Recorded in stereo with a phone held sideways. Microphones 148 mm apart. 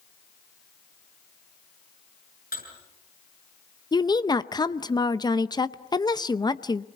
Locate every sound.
2.5 s dishes clattering: 90° left, 7 m
3.9 s a woman speaking: 30° left (ahead or behind), 0.7 m